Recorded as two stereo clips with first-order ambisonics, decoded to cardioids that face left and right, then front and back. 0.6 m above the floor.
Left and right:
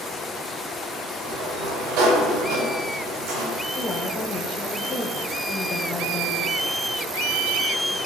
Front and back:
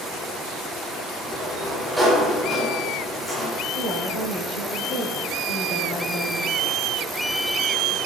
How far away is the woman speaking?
About 4 m.